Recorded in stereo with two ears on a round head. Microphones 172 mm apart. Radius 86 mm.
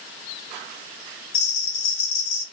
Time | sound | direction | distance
1.3 | a bell | 90° left | 1.6 m